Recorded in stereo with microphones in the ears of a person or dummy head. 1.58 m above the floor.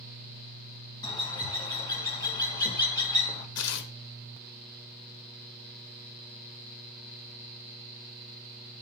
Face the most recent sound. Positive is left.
turn(degrees=85)